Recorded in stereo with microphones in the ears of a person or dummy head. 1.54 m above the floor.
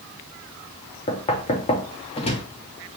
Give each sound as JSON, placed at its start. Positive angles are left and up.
{"t": 1.1, "sound": "knocking", "side_deg": 30, "distance_m": 0.5}